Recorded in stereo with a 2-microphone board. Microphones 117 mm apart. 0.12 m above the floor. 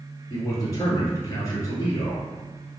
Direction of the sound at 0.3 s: 30° left (ahead or behind).